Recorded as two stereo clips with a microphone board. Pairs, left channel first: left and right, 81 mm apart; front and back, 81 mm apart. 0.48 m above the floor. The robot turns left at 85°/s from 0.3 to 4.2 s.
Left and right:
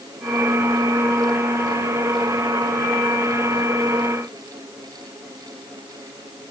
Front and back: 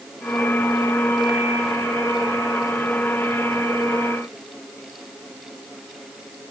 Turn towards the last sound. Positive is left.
No sound to turn to.